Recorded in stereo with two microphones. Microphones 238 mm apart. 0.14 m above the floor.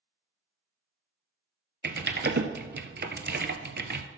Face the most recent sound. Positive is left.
turn(degrees=-50)  # may be behind; listen again after turning